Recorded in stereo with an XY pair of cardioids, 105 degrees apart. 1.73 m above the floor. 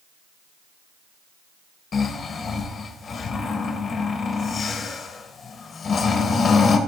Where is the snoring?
45° left, 2.5 m.